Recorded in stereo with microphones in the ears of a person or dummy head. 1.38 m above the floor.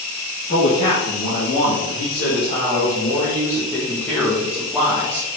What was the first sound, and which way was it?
A man speaking, 45° left (ahead or behind).